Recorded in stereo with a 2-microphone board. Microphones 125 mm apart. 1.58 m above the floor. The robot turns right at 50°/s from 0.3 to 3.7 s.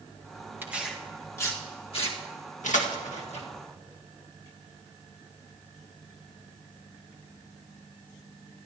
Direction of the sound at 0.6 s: 15° right (ahead or behind).